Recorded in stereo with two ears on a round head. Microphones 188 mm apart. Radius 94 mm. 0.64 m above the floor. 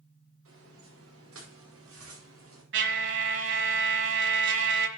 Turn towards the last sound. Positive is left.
turn(degrees=-60)  # may be behind; listen again after turning